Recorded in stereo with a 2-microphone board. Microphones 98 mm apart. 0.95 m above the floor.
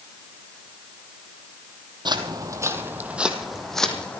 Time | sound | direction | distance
2.0 | footsteps | 50° right (ahead or behind) | 1.8 m